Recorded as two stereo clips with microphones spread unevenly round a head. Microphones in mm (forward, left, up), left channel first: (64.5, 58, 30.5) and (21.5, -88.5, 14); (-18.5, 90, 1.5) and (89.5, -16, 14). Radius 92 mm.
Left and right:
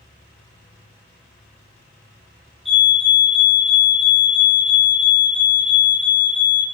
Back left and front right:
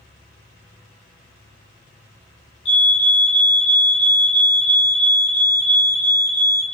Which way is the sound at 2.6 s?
170° left.